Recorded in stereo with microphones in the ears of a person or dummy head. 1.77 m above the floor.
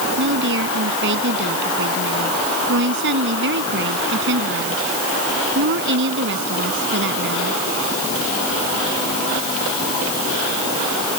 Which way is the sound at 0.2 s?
65° right (ahead or behind).